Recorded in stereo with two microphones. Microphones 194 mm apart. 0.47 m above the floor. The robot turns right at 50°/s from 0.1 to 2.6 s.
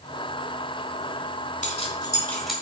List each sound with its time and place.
1.6 s keys jangling: 40° left (ahead or behind), 1.7 m; by 2.5 s 5° right (ahead or behind), 1.7 m